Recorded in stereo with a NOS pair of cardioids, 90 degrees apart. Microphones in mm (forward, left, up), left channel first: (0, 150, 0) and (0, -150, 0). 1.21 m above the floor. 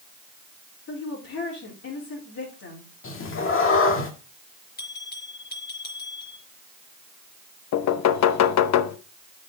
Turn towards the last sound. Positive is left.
turn(degrees=70)